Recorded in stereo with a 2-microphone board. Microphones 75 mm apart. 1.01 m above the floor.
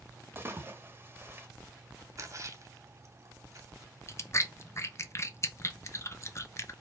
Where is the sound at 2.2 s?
45° right (ahead or behind), 0.9 m.